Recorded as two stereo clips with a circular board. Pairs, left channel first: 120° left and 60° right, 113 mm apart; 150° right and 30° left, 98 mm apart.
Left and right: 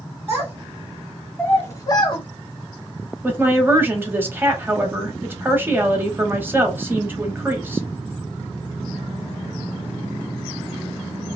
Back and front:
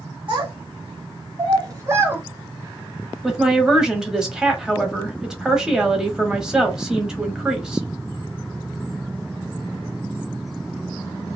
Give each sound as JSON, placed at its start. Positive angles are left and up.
{"t": 0.3, "sound": "a child speaking", "azimuth_deg": 5, "distance_m": 1.4}
{"t": 3.2, "sound": "a woman speaking", "azimuth_deg": -40, "distance_m": 1.0}